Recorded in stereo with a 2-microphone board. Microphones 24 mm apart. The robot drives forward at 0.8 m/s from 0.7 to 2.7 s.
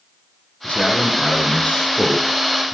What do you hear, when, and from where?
0.6 s a man speaking: 50° left (ahead or behind), 5.5 m; by 2.8 s 60° left (ahead or behind), 4.5 m